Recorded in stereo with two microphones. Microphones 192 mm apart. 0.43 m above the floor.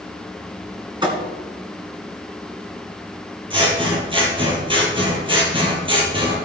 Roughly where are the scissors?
Right.